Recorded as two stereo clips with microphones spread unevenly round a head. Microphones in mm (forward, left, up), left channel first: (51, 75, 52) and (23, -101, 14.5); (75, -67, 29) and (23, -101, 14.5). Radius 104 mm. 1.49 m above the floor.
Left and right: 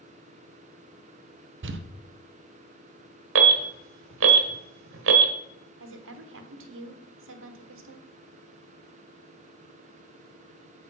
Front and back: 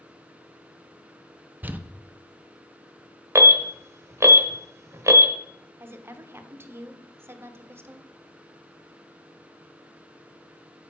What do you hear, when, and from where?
1.6 s crumpling: 80° right, 0.8 m
3.4 s an alarm: 105° right, 1.2 m
5.8 s a woman speaking: 90° right, 1.2 m